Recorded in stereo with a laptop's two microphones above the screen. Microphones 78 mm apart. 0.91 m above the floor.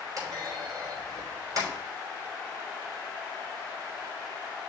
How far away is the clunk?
About 4.5 m.